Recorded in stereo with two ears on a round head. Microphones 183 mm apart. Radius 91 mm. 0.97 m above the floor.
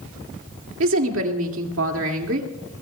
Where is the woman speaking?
75° right (ahead or behind), 2 m.